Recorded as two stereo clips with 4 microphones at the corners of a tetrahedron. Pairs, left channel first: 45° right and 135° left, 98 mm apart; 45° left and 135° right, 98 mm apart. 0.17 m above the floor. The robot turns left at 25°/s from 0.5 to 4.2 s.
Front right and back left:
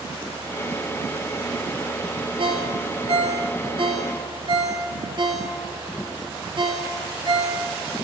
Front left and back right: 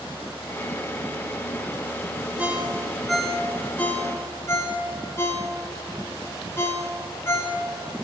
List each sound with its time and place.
2.4 s a ringtone: 155° left, 2 m; by 7.6 s 110° left, 2 m